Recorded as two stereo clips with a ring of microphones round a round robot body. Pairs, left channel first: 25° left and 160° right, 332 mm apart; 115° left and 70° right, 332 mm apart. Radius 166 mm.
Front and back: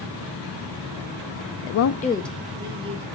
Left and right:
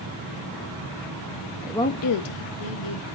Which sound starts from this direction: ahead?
A woman speaking, at 1.6 s.